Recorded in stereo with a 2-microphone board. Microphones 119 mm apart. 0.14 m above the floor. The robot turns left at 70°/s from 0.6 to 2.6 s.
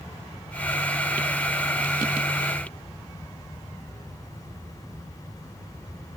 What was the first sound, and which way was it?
Only background noise.